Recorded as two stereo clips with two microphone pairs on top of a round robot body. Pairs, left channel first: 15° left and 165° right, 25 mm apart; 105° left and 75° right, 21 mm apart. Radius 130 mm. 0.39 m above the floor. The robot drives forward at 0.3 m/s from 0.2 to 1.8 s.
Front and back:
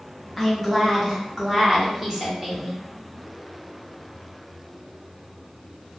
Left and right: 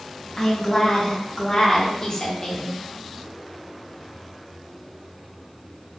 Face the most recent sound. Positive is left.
turn(degrees=140)